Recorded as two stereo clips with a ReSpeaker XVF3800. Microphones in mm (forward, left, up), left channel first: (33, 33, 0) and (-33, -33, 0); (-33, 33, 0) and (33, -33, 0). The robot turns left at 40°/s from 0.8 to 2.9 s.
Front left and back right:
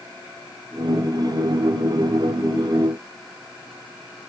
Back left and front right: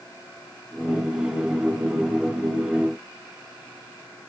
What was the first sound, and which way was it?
Only background noise.